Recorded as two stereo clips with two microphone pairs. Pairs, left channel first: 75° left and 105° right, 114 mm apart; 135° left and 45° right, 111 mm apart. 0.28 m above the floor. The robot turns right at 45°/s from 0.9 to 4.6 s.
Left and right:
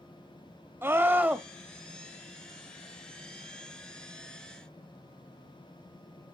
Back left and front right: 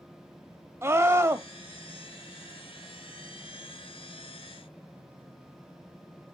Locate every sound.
0.8 s a scream: 65° right, 1.1 m; by 1.5 s 40° right, 1.1 m